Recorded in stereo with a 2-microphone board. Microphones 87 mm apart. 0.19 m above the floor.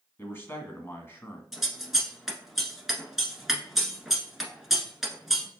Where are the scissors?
5° right (ahead or behind), 1.0 m.